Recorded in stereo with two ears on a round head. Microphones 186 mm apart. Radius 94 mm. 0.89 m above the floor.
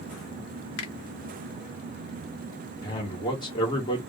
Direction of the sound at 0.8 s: 70° left (ahead or behind).